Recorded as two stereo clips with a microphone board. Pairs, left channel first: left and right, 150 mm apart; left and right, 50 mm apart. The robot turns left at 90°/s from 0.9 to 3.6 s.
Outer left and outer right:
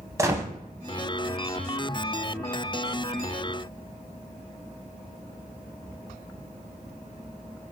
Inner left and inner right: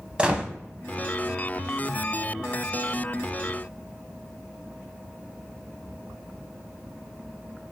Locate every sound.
0.2 s a gunshot: 20° right (ahead or behind), 0.5 m